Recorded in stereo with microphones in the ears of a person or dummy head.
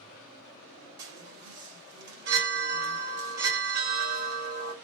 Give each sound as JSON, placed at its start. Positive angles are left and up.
{"t": 1.0, "sound": "a chime", "side_deg": -65, "distance_m": 2.0}